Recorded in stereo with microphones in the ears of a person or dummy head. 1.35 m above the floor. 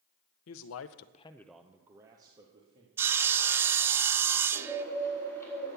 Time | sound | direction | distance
0.5 | a man speaking | 70° left (ahead or behind) | 0.8 m
3.0 | sawing | 15° right (ahead or behind) | 0.5 m
4.5 | a bird | 5° left (ahead or behind) | 5 m